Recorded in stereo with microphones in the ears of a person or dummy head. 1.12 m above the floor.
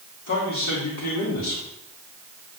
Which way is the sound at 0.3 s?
70° left (ahead or behind).